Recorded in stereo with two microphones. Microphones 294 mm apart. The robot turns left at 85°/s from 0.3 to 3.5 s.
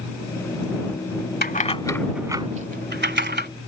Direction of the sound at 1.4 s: 30° left (ahead or behind).